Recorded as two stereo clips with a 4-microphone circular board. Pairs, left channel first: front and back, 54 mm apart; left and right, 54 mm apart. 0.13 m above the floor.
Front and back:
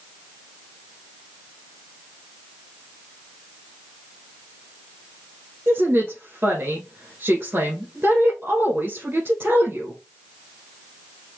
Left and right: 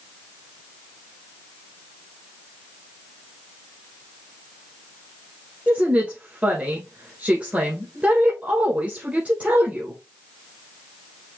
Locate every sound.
5.7 s a woman speaking: 145° right, 1.7 m